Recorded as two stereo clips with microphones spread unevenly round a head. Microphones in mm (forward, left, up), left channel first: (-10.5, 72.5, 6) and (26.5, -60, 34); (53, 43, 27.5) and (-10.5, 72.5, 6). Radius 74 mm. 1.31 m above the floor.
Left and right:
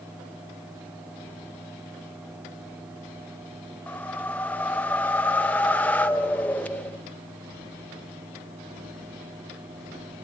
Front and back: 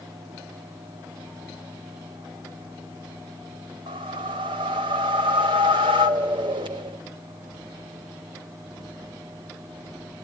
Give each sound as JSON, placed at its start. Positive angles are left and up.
{"t": 3.9, "sound": "a whoosh", "azimuth_deg": -165, "distance_m": 0.6}